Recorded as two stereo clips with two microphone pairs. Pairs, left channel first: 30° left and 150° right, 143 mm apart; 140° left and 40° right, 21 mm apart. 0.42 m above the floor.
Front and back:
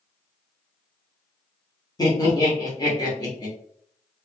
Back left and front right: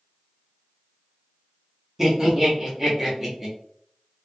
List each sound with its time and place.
2.0 s laughter: 10° left, 0.9 m